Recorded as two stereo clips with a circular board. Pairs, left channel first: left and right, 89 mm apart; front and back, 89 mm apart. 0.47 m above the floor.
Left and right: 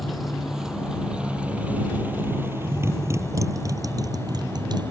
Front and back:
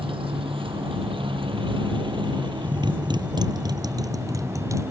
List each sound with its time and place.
0.0 s a motorcycle: straight behind; by 4.9 s 125° right